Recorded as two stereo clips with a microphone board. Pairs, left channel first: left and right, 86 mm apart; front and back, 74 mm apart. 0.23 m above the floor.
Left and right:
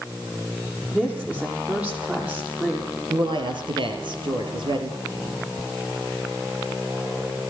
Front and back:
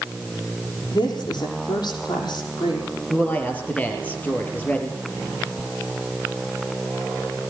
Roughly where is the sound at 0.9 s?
Ahead.